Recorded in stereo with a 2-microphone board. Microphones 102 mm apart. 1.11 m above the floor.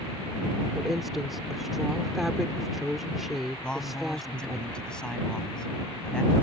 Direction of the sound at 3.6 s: 10° left (ahead or behind).